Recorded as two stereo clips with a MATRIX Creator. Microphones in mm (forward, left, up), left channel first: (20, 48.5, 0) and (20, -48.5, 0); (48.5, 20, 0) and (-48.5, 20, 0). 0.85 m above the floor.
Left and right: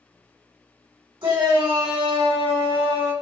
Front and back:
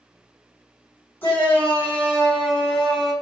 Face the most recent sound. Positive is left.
turn(degrees=-85)